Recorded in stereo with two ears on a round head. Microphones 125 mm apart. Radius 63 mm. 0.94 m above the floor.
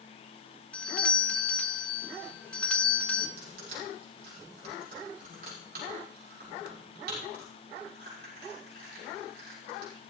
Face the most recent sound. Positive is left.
turn(degrees=-85)